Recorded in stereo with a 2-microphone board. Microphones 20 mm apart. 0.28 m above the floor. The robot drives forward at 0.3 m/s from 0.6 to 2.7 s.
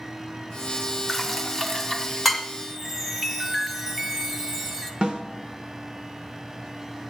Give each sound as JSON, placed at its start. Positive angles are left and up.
{"t": 1.1, "sound": "dishes clattering", "side_deg": -10, "distance_m": 1.3}
{"t": 2.6, "sound": "a chime", "side_deg": -20, "distance_m": 1.8}
{"t": 5.0, "sound": "a snare drum", "side_deg": -65, "distance_m": 1.7}